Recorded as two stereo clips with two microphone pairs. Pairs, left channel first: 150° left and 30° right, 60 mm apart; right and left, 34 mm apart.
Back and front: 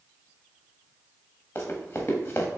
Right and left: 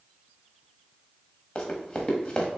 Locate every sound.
1.6 s running footsteps: 155° right, 1.3 m